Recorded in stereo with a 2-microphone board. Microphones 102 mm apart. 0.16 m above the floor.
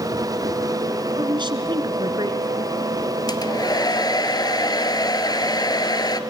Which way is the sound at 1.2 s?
50° right (ahead or behind).